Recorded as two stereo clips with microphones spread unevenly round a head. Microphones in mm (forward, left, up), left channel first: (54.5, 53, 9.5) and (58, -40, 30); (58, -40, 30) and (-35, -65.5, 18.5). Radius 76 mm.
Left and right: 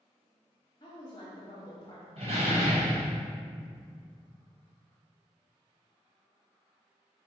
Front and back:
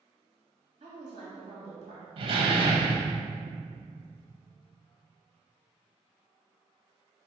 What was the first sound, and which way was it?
A woman speaking, 150° left.